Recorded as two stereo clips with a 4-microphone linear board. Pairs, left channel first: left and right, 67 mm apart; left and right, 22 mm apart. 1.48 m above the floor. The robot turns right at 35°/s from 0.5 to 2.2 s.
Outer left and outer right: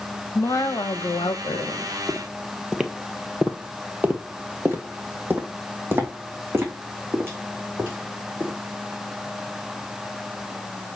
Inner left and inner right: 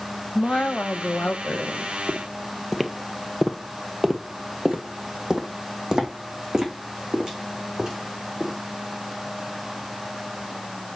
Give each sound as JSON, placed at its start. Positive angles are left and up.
{"t": 0.3, "sound": "a woman speaking", "azimuth_deg": 55, "distance_m": 1.4}
{"t": 2.1, "sound": "footsteps", "side_deg": 5, "distance_m": 1.6}